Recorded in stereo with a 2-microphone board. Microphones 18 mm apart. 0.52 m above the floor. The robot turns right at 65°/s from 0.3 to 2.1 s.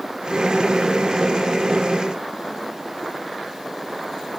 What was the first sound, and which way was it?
Only background noise.